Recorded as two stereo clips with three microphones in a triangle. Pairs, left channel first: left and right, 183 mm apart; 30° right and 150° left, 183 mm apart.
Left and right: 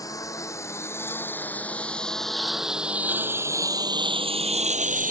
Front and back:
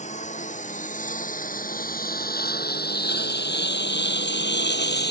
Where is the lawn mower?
20° left; by 5.1 s 50° right.